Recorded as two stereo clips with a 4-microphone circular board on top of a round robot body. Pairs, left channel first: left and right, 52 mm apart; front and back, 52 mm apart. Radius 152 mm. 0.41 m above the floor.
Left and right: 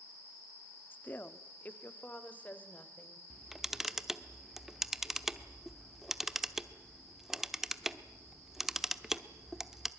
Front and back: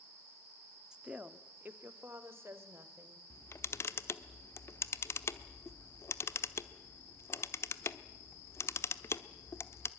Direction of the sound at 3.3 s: 5° right.